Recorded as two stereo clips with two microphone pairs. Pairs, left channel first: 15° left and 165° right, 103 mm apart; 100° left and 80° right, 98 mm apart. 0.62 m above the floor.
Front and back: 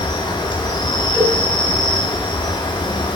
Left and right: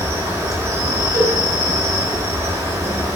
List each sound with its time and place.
0.0 s an insect: 20° right, 2 m
1.1 s a cowbell: 35° right, 4.5 m